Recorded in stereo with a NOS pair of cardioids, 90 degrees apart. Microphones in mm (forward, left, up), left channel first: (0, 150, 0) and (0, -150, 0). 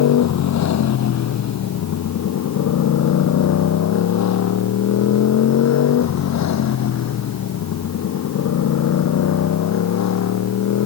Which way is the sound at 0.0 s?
65° left.